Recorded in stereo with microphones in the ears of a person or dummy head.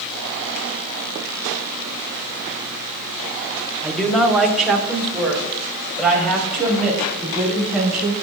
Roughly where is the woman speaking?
Centre.